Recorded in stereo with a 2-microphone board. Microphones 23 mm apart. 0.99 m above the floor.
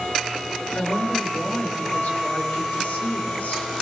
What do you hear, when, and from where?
0.8 s a woman speaking: 80° left, 4.5 m